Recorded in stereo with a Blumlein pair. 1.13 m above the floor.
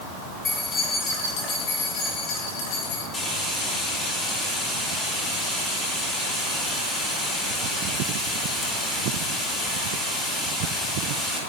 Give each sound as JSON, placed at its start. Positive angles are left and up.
{"t": 0.5, "sound": "keys jangling", "azimuth_deg": 20, "distance_m": 6.0}
{"t": 3.1, "sound": "frying", "azimuth_deg": 15, "distance_m": 4.5}